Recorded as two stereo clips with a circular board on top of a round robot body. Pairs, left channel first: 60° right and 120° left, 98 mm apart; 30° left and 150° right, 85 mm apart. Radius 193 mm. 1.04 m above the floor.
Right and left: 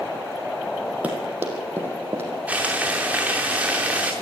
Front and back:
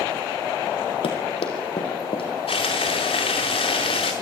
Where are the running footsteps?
45° left, 3 m; by 2.3 s 50° left, 3.5 m.